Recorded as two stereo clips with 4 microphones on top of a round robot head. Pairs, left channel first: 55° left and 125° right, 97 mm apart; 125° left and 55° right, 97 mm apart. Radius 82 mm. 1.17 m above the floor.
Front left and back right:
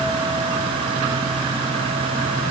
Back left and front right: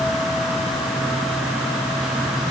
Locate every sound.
Only background noise.